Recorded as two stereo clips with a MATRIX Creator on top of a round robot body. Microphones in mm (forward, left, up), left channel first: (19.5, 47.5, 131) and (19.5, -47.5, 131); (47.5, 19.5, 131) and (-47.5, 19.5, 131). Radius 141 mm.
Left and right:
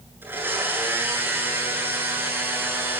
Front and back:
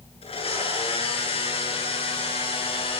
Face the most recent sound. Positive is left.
turn(degrees=-20)